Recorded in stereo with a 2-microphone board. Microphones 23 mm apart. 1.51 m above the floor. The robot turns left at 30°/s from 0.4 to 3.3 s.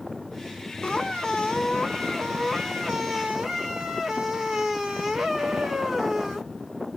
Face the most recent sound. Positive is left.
turn(degrees=-20)